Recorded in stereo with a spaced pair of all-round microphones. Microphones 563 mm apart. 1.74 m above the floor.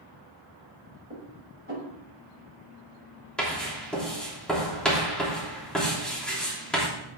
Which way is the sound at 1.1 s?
20° right (ahead or behind).